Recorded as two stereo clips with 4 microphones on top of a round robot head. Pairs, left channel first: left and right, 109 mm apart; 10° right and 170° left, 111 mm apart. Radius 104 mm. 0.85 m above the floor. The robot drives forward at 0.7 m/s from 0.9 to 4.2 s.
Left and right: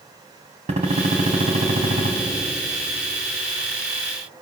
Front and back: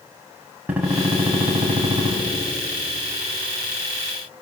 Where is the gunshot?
110° right, 3 m; by 2.1 s 125° right, 3.5 m.